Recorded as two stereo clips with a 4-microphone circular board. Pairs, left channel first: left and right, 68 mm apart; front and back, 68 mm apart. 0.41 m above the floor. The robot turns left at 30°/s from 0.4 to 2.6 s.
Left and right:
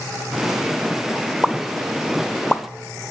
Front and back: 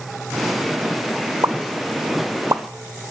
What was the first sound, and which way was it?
A pop, 165° right.